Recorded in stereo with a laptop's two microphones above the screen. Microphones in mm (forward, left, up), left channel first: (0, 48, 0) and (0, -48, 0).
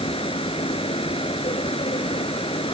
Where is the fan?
75° left (ahead or behind).